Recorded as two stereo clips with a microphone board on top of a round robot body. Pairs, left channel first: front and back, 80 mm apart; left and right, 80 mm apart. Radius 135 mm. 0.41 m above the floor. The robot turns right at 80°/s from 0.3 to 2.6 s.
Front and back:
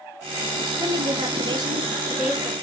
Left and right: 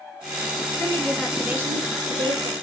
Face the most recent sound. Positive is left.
turn(degrees=-75)